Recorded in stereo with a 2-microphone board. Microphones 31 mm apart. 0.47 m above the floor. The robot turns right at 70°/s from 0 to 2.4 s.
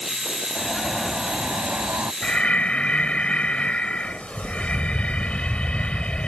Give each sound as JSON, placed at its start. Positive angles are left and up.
{"t": 0.6, "sound": "an alarm", "azimuth_deg": 165}
{"t": 2.2, "sound": "breathing", "side_deg": 30}